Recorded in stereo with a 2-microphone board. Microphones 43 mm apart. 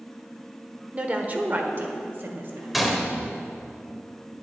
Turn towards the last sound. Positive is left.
turn(degrees=-5)  # may be behind; listen again after turning